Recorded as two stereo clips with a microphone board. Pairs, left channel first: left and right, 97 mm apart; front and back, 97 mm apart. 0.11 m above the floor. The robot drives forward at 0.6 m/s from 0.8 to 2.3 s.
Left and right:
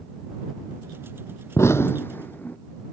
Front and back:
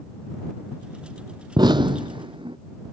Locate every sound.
1.6 s an explosion: 145° left; by 2.6 s 160° left